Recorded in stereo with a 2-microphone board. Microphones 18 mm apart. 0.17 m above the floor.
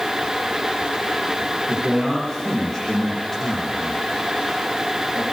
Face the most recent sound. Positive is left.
turn(degrees=20)  # may be behind; listen again after turning